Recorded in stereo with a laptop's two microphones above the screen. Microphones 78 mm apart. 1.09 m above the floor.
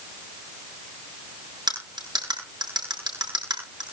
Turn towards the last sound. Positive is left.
turn(degrees=-60)  # may be behind; listen again after turning